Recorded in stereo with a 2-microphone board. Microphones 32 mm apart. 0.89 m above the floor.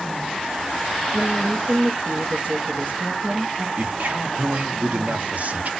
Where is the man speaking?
55° right (ahead or behind), 1.2 m.